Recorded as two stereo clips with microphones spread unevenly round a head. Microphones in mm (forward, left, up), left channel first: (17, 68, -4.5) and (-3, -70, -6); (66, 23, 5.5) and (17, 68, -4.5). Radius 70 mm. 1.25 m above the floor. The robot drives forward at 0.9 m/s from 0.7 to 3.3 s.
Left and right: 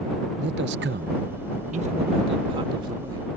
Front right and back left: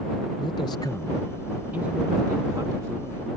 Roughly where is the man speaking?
Right.